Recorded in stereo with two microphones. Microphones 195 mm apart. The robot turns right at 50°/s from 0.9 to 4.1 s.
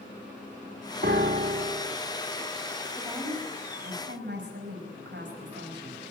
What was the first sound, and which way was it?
A piano, 100° right.